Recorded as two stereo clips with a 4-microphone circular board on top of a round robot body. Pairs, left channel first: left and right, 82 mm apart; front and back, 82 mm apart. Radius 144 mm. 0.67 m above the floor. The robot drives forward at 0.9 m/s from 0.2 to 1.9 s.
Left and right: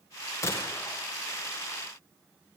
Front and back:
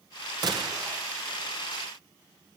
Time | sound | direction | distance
0.4 | a gunshot | 145° left | 3 m